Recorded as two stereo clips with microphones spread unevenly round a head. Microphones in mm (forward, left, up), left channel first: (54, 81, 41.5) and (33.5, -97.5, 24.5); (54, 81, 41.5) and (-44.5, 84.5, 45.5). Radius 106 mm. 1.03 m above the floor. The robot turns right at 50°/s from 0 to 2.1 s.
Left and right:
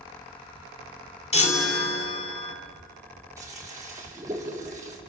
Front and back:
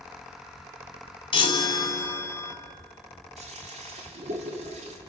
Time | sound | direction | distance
1.3 | a chime | 30° left | 3 m
3.4 | a toilet flushing | 175° right | 2 m